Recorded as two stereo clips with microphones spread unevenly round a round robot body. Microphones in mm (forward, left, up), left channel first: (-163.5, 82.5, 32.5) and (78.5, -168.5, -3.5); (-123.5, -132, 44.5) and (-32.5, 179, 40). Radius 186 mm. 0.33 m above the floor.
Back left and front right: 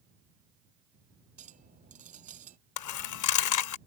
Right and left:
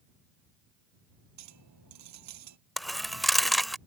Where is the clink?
25° left.